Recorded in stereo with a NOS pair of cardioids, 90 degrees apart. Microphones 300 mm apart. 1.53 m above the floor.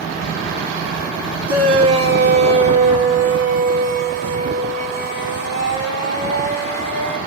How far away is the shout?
About 2.5 m.